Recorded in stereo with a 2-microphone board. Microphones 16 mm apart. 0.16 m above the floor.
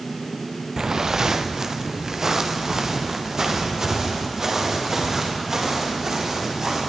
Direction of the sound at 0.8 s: 40° right (ahead or behind).